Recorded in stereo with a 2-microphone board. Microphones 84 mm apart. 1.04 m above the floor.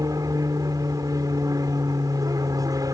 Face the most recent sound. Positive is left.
turn(degrees=-45)  # may be behind; listen again after turning